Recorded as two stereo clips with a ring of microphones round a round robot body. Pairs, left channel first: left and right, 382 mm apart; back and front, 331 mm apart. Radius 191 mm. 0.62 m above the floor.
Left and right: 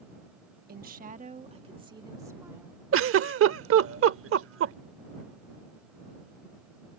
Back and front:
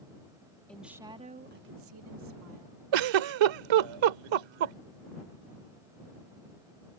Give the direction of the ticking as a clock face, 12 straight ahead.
No ticking in this recording.